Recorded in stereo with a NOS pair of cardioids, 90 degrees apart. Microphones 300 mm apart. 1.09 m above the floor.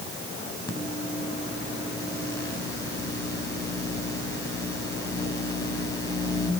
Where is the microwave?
15° left, 5 m.